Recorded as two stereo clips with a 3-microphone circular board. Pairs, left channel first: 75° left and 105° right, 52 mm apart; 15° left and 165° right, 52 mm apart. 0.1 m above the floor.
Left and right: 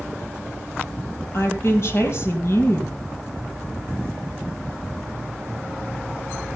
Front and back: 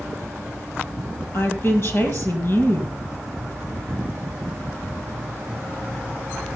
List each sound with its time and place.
1.3 s a woman speaking: 45° left, 3 m